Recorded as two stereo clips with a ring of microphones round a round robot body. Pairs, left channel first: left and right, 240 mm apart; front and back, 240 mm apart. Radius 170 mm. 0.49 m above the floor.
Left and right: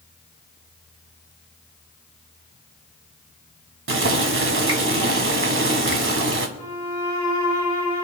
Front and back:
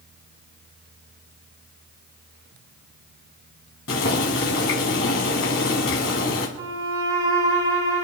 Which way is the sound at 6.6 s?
165° left.